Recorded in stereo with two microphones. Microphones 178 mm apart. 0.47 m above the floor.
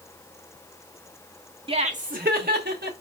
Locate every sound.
1.7 s laughter: 30° right (ahead or behind), 0.9 m; by 2.9 s 65° right (ahead or behind), 1.9 m